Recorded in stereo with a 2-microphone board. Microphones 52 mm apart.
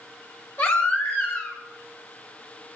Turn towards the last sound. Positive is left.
turn(degrees=45)  # may be behind; listen again after turning